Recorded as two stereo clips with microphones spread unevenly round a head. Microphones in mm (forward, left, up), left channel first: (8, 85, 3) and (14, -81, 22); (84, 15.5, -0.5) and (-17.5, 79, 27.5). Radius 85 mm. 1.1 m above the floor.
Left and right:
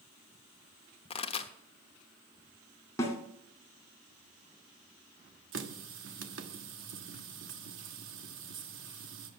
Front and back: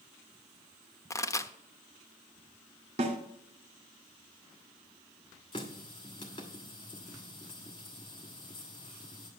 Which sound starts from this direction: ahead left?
A pop, at 1.1 s.